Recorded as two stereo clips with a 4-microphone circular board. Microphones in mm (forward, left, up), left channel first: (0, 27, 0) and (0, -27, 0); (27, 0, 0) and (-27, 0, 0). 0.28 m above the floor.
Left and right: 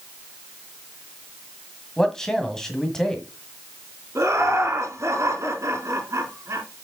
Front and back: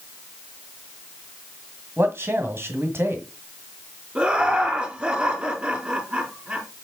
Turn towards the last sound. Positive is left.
turn(degrees=-115)